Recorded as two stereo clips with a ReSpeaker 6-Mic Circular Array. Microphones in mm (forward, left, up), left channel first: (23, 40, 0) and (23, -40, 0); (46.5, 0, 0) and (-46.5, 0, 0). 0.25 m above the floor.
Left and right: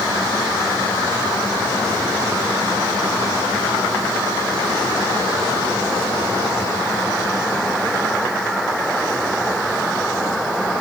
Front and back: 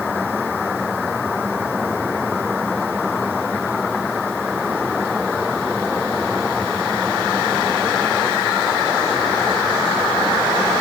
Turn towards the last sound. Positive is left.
No sound to turn to.